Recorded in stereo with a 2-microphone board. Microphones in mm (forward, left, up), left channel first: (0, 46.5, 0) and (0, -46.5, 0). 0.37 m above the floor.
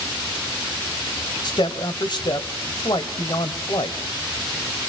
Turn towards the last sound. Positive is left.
turn(degrees=55)  # may be behind; listen again after turning